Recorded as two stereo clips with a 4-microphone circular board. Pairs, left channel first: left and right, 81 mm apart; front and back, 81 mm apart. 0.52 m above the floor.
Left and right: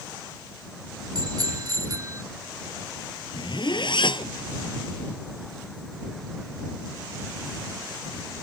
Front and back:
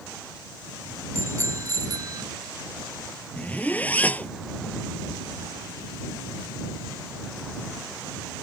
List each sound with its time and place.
1.1 s a bicycle bell: 125° right; by 2.2 s 140° right
3.4 s a zipper: 70° left